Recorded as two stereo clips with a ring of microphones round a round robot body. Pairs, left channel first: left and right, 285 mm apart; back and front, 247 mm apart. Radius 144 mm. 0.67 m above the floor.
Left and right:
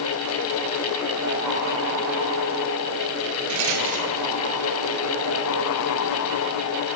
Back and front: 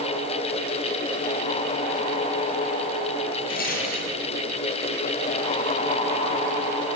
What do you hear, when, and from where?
3.5 s a rattle: 120° right, 3.5 m